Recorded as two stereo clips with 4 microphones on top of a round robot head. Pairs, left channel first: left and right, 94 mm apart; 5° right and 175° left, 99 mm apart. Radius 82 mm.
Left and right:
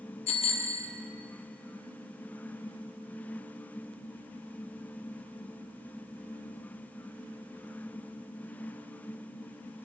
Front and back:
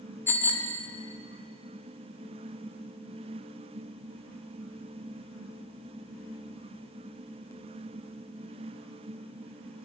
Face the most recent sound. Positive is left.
turn(degrees=65)